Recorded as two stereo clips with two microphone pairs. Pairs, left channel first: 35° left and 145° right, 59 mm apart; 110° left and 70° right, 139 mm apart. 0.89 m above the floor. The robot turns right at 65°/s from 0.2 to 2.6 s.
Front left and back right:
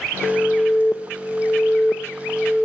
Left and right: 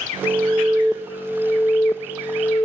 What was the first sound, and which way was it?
An alarm, 30° right.